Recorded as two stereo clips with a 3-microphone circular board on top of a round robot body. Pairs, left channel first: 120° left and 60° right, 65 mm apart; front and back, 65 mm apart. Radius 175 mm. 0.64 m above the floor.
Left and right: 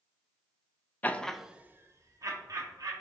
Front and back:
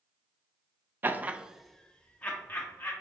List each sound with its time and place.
1.0 s laughter: 160° left, 0.5 m; by 2.9 s 60° right, 0.9 m